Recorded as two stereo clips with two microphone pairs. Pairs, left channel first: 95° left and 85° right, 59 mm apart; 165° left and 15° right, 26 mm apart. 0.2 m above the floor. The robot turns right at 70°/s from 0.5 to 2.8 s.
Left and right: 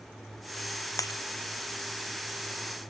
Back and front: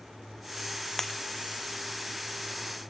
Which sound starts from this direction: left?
Breaking glass, at 1.0 s.